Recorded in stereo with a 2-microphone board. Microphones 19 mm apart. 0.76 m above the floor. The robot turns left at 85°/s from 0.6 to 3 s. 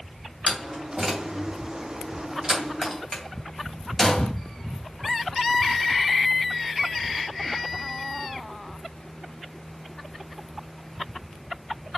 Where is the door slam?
10° left (ahead or behind), 2.5 m; by 4.3 s 15° left (ahead or behind), 2.5 m.